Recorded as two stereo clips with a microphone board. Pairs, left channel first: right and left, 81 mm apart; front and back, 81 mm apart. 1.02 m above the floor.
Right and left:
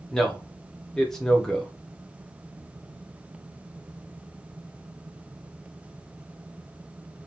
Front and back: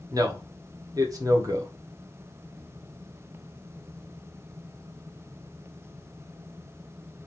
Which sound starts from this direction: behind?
A man speaking, at 0.1 s.